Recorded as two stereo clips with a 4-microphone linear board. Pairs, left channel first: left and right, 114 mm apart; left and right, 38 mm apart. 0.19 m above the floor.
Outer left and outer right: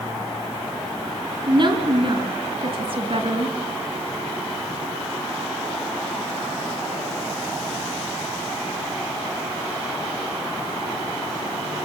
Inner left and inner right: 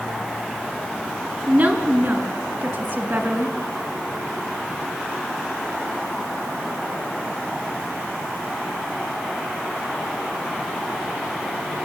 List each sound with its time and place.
1.5 s a woman speaking: 45° right (ahead or behind), 2 m; by 3.5 s 55° right (ahead or behind), 2 m